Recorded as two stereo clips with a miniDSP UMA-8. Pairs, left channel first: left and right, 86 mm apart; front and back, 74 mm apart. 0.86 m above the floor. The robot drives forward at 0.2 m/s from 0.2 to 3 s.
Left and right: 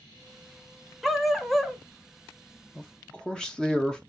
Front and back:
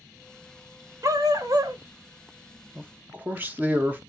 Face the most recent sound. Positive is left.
turn(degrees=160)